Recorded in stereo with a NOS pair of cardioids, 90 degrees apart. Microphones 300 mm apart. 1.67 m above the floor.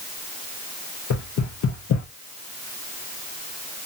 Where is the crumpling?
I don't hear crumpling.